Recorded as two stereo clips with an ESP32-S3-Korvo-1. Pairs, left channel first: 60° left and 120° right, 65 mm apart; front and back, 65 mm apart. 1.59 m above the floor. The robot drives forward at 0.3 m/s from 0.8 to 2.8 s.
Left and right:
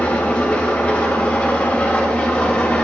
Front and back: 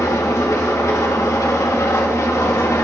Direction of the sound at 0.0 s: Straight ahead.